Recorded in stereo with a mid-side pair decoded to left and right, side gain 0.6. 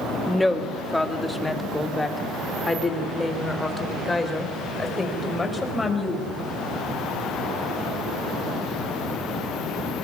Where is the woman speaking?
10° left, 2 m; by 6.3 s 20° left, 6.5 m.